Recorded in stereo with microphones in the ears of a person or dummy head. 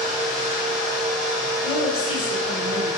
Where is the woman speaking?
45° left (ahead or behind), 1.2 m.